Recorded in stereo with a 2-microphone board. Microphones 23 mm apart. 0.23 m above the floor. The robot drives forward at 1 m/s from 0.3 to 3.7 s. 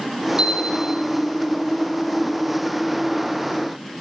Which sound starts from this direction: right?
A chime, at 0.4 s.